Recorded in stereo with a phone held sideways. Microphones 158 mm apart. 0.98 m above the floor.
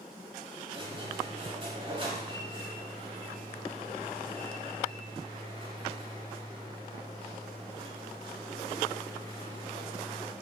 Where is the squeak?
35° right (ahead or behind), 0.9 m.